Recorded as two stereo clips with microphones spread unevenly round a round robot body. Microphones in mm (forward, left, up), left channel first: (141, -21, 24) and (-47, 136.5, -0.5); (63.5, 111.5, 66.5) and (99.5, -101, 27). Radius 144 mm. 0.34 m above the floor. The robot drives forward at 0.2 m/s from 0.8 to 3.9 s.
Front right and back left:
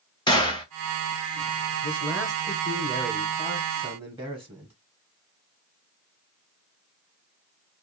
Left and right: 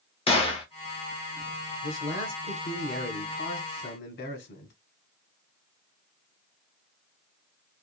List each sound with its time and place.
0.3 s a gunshot: 35° left, 1.0 m
1.8 s a man speaking: 65° left, 1.3 m; by 4.7 s 95° left, 1.2 m